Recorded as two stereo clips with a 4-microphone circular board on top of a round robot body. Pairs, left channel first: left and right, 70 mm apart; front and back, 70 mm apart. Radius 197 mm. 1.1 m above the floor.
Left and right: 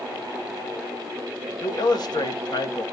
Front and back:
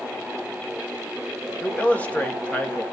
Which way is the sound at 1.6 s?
70° left.